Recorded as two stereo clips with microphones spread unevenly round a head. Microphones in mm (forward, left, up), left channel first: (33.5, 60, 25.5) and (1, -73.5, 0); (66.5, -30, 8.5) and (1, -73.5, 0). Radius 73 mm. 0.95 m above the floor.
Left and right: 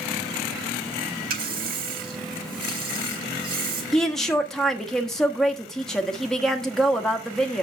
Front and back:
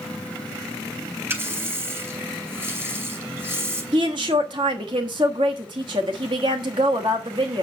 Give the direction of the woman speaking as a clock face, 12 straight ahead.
6 o'clock.